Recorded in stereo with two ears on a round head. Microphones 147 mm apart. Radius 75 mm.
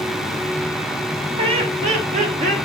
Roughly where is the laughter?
Right.